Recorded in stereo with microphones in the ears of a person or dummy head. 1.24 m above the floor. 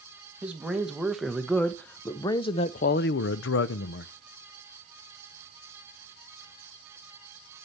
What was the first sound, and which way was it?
A man speaking, 5° right (ahead or behind).